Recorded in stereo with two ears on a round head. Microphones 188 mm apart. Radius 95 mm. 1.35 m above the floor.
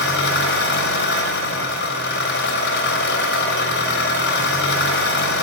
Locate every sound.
0.0 s an engine running: 55° left (ahead or behind), 3.5 m